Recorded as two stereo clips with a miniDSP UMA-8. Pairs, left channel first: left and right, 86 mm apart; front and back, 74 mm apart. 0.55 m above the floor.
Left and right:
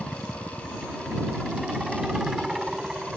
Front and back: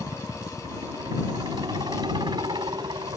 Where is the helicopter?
175° right.